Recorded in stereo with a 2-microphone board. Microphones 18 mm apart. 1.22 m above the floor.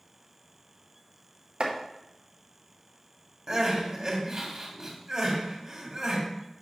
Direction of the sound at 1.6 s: 60° right (ahead or behind).